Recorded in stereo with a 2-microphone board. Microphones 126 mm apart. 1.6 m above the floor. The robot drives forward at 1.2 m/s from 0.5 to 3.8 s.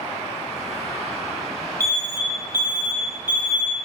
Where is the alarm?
25° right (ahead or behind), 2.5 m; by 3.8 s 15° right (ahead or behind), 5 m.